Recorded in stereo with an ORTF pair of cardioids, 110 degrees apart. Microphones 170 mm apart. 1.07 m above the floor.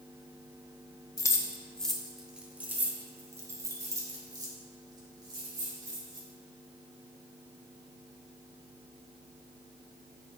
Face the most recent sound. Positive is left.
turn(degrees=-30)